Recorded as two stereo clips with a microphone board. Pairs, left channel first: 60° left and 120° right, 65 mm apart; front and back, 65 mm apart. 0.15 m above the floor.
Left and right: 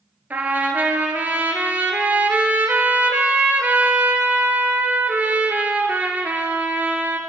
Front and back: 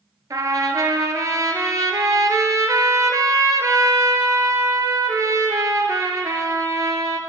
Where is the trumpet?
Straight behind, 0.6 m.